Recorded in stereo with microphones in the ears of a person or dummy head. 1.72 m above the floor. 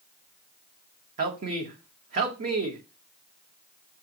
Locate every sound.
1.2 s a man speaking: 50° right (ahead or behind), 1.0 m